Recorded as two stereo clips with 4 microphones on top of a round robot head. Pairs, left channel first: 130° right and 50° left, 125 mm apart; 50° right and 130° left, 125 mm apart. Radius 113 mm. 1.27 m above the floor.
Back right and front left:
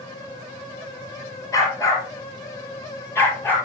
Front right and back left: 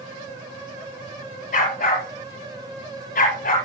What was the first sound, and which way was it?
A dog barking, 60° right.